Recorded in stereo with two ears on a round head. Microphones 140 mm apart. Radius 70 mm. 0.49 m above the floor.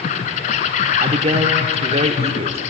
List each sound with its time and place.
0.0 s an insect: 45° left (ahead or behind), 1.1 m
1.0 s a man speaking: 35° right (ahead or behind), 0.9 m